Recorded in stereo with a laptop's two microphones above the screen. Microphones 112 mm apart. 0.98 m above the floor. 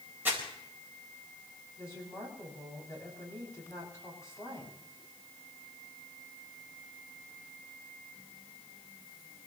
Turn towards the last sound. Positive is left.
turn(degrees=30)  # may be behind; listen again after turning